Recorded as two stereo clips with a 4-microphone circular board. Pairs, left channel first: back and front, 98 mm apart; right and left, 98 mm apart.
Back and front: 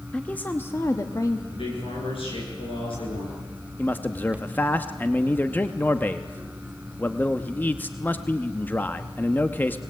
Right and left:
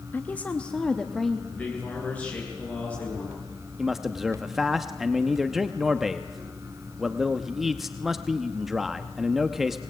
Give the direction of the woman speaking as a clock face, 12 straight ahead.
4 o'clock.